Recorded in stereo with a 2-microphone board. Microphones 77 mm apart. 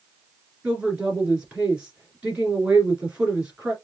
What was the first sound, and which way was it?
A woman speaking, 15° right (ahead or behind).